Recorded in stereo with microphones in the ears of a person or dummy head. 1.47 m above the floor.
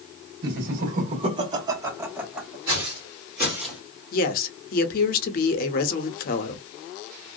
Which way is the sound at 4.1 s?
50° left (ahead or behind).